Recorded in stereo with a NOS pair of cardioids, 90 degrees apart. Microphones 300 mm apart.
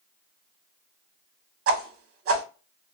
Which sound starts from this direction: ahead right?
A whoosh, at 1.7 s.